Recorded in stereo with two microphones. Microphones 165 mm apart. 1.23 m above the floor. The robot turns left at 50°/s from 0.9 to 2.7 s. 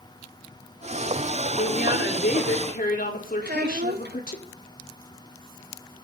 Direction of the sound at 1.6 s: 120° left.